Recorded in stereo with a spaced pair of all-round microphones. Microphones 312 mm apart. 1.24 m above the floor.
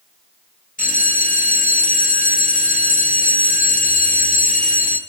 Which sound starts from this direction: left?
A bell, at 0.8 s.